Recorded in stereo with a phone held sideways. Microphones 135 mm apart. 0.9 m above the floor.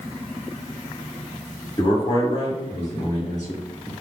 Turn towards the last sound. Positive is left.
turn(degrees=70)  # may be behind; listen again after turning